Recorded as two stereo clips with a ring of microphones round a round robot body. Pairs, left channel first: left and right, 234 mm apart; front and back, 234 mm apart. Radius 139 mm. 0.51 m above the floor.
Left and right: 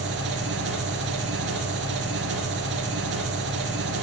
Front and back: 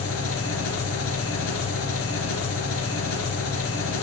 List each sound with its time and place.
0.0 s an engine running: 40° right, 3.5 m